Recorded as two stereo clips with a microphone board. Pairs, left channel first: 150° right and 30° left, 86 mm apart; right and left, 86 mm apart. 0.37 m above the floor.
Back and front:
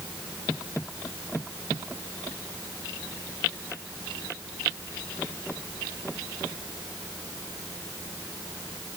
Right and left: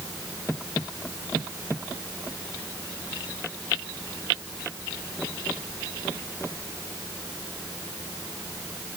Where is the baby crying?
No baby crying in this recording.